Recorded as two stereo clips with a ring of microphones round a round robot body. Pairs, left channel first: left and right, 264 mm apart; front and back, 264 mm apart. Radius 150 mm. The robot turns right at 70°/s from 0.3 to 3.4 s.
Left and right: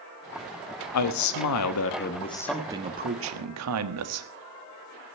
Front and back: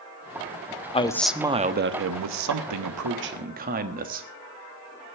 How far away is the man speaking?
About 1.3 m.